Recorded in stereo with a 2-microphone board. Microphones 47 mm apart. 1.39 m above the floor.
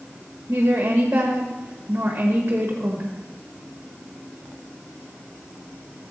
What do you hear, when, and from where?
0.5 s a woman speaking: 35° right (ahead or behind), 1.3 m